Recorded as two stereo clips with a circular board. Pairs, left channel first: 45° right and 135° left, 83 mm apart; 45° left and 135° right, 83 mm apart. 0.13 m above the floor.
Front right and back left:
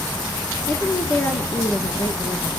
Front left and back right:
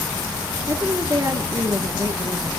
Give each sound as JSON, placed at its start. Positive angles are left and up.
{"t": 0.7, "sound": "a woman speaking", "azimuth_deg": -105, "distance_m": 2.0}